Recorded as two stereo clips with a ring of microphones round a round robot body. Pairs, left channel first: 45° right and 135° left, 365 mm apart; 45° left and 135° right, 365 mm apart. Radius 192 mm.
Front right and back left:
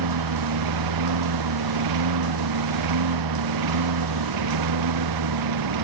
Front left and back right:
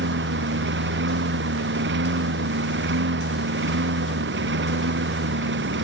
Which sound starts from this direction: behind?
A lawn mower, at 0.0 s.